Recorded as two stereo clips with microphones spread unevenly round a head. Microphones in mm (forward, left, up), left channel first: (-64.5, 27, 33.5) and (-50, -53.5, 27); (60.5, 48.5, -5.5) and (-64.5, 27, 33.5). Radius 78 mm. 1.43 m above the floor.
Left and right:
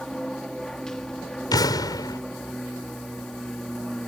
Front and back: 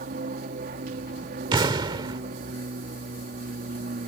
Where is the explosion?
135° left.